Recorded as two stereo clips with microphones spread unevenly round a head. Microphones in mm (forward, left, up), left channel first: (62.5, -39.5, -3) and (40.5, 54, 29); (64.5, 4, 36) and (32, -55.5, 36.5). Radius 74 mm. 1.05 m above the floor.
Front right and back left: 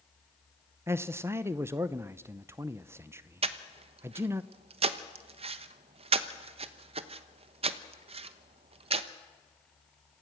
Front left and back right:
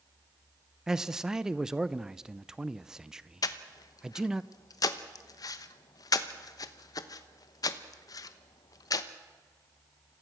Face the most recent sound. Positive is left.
turn(degrees=80)